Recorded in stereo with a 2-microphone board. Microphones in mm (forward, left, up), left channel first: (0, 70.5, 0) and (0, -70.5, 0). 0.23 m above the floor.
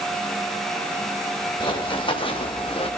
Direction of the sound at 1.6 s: 35° left (ahead or behind).